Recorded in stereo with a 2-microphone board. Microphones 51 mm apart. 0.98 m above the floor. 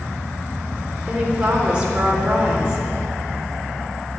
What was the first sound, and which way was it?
A woman speaking, 20° right (ahead or behind).